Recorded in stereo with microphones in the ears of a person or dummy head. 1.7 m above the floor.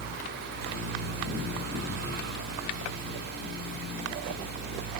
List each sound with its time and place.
0.0 s a fan: 50° right (ahead or behind), 2.5 m